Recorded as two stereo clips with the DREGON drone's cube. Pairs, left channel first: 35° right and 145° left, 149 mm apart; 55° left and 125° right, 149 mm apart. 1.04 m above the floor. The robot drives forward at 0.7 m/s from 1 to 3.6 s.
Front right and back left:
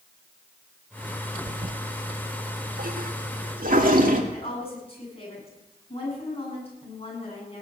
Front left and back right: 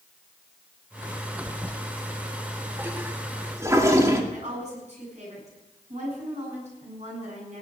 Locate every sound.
1.5 s a toilet flushing: 125° left, 0.6 m; by 4.2 s 165° left, 1.9 m
4.3 s a woman speaking: 85° right, 7.5 m